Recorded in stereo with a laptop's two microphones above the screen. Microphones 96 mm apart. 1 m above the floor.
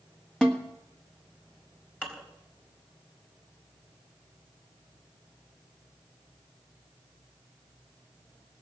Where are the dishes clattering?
15° left (ahead or behind), 3.5 m.